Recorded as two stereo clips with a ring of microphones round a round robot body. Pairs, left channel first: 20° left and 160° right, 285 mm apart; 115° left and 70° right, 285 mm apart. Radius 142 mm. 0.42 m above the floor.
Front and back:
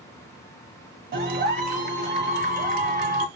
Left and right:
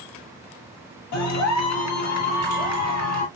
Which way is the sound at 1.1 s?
145° left.